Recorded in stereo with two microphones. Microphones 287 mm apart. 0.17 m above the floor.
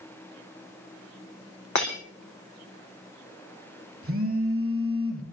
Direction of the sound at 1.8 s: 75° left (ahead or behind).